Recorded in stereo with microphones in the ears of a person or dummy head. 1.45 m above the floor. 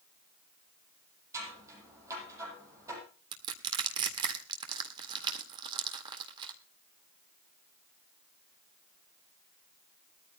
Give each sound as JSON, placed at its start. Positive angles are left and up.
{"t": 1.3, "sound": "scissors", "side_deg": -20, "distance_m": 7.0}
{"t": 3.3, "sound": "crushing", "side_deg": -30, "distance_m": 1.8}